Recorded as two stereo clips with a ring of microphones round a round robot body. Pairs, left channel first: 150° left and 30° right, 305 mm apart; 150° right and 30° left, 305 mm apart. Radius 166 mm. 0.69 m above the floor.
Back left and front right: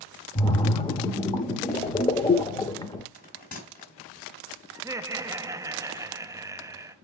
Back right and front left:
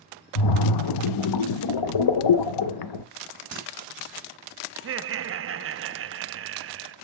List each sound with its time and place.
0.3 s a splash: 135° right, 0.6 m
3.1 s a bell: 85° left, 3 m
4.8 s laughter: 45° left, 0.6 m